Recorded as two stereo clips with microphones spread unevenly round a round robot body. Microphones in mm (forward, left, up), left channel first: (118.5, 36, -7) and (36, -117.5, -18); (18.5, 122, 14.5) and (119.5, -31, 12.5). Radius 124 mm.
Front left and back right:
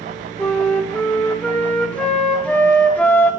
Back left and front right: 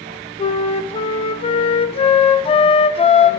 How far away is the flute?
About 0.9 m.